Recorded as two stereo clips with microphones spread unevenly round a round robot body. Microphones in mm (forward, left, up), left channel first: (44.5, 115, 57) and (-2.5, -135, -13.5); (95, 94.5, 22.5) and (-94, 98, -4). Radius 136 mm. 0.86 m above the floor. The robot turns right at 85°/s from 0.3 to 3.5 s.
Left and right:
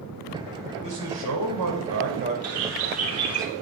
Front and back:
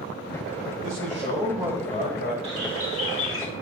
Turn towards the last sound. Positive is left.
turn(degrees=-5)